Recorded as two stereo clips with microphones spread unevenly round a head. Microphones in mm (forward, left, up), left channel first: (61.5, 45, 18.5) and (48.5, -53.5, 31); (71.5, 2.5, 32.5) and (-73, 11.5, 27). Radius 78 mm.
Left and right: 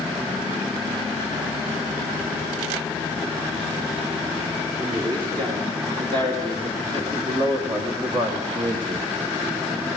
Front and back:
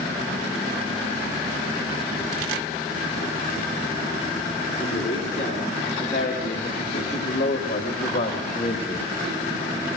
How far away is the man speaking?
About 5.5 m.